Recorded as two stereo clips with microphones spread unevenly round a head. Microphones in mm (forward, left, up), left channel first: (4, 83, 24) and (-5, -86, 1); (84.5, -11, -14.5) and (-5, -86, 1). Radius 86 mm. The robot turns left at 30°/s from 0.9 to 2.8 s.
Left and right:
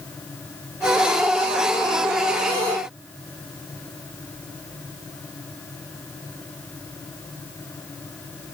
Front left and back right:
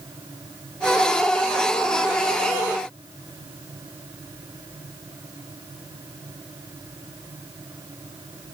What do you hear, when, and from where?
Only background noise.